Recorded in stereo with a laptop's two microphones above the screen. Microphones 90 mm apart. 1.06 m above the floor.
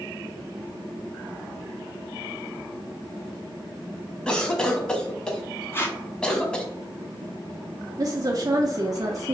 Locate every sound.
4.3 s a cough: 10° left (ahead or behind), 1.1 m
5.7 s tape being pulled: 25° left (ahead or behind), 0.8 m
8.0 s a woman speaking: 45° right (ahead or behind), 0.6 m